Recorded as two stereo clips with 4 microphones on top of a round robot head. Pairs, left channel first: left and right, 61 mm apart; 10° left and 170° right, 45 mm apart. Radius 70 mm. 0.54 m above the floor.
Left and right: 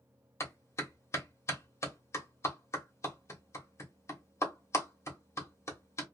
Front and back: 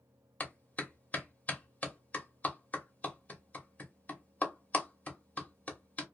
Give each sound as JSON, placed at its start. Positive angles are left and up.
{"t": 0.4, "sound": "a clap", "azimuth_deg": 55, "distance_m": 1.3}